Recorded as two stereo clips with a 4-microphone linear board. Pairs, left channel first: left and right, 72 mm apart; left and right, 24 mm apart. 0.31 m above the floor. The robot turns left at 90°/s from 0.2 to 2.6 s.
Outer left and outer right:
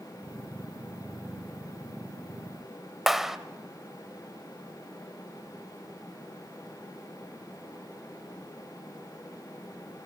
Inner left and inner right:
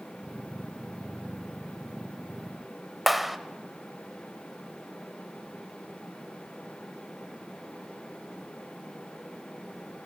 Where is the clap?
5° right (ahead or behind), 0.8 m.